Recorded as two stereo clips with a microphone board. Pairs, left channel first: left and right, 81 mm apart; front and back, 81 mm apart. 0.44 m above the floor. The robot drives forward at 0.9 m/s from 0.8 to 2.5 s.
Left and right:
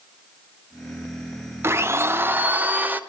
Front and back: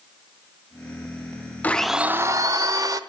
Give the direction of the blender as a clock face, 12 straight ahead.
2 o'clock.